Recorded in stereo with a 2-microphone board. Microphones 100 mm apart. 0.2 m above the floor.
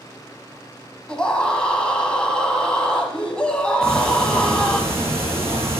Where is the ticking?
25° right (ahead or behind), 5 m.